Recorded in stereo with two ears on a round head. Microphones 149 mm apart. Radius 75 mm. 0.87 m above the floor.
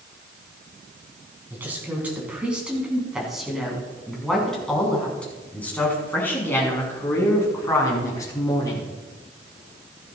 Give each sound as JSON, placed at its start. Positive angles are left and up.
{"t": 1.5, "sound": "a woman speaking", "side_deg": -10, "distance_m": 6.5}